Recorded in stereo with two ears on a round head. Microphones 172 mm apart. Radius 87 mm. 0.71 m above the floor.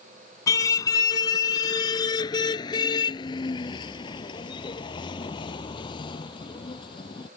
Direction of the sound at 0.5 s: 20° left (ahead or behind).